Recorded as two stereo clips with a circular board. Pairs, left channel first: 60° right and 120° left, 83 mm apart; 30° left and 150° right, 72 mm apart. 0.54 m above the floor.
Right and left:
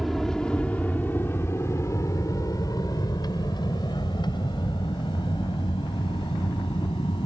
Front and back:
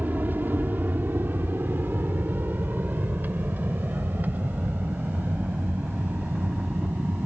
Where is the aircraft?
150° right; by 7.3 s 80° right.